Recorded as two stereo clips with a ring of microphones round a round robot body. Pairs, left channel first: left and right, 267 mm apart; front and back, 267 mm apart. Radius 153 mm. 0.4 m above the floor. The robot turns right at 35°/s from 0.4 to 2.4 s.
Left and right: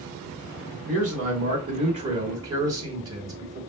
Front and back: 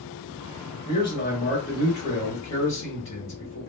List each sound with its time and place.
0.8 s a man speaking: 75° right, 1.5 m; by 3.6 s 20° right, 1.5 m